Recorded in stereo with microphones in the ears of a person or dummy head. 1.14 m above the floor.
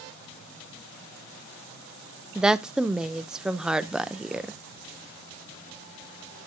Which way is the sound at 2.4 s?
Centre (ahead or behind).